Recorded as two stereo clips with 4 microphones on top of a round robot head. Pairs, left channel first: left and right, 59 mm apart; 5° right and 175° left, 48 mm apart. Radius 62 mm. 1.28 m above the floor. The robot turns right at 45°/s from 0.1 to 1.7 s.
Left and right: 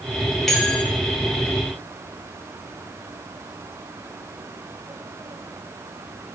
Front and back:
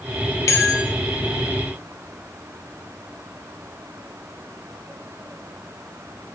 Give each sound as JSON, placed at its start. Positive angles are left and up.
{"t": 0.5, "sound": "a bell", "azimuth_deg": 0, "distance_m": 1.3}